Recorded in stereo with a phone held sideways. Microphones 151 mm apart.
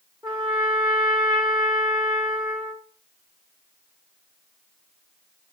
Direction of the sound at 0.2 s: 25° right (ahead or behind).